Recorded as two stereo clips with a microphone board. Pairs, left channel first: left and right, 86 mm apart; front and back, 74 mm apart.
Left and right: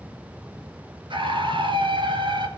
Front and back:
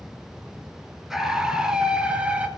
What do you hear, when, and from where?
1.1 s a scream: 95° right, 3.5 m; by 2.5 s 110° right, 3.5 m